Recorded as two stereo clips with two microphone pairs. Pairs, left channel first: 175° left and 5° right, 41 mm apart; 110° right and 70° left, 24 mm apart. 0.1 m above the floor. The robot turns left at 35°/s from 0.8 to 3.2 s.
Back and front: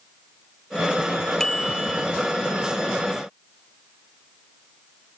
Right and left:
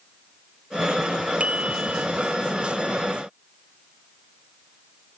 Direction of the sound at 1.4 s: 105° left.